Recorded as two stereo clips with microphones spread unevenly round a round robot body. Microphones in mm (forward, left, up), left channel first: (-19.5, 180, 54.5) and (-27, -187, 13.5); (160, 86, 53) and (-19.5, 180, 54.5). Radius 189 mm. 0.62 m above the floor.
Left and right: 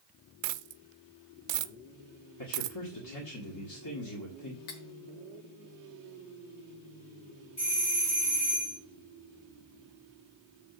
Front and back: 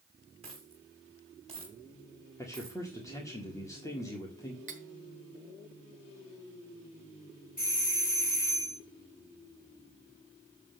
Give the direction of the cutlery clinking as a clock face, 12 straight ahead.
9 o'clock.